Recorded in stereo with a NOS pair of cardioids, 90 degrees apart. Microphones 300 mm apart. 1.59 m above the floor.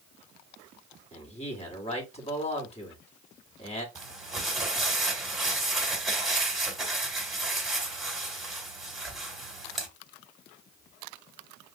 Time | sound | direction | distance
1.1 | a man speaking | 20° left | 2 m
4.0 | crumpling | straight ahead | 2 m